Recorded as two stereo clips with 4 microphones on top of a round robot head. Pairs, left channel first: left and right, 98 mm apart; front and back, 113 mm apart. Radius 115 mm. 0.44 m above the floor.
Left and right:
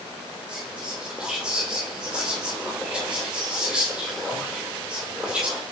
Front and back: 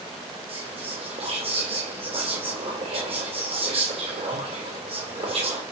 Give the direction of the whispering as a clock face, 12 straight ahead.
6 o'clock.